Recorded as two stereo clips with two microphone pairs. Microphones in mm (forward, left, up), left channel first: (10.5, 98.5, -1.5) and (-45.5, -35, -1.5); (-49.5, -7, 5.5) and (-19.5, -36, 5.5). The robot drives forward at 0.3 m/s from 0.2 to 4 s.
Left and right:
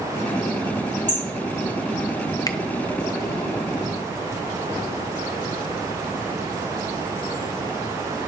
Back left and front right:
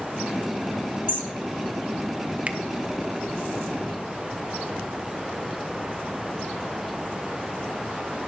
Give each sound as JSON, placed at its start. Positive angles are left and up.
{"t": 1.1, "sound": "hammering", "azimuth_deg": -85, "distance_m": 5.5}
{"t": 2.5, "sound": "a finger snap", "azimuth_deg": 10, "distance_m": 0.6}